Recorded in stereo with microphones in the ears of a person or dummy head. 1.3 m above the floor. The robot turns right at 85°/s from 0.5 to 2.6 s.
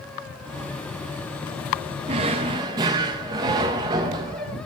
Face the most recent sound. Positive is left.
turn(degrees=-25)  # may be behind; listen again after turning